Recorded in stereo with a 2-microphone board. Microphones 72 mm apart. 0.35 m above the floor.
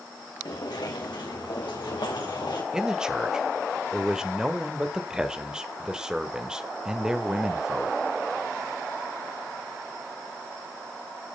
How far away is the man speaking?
About 1.2 m.